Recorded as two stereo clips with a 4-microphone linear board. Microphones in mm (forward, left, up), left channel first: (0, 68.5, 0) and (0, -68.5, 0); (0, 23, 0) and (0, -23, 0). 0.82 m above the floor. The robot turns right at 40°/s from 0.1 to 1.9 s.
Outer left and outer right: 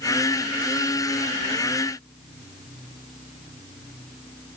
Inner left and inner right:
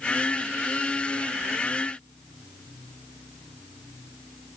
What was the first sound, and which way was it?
Only background noise.